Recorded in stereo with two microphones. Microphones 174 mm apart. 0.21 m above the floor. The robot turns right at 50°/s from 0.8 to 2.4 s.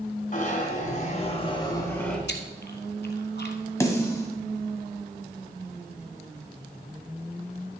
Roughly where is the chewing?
Left.